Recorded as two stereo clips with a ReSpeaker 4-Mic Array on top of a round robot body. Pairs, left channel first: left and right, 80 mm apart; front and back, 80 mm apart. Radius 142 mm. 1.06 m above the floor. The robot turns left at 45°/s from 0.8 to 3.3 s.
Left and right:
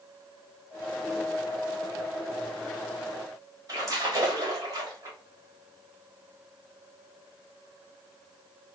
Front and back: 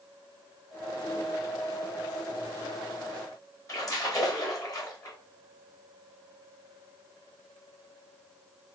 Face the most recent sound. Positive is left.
turn(degrees=-45)